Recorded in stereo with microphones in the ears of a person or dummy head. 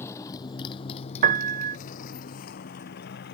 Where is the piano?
45° right (ahead or behind).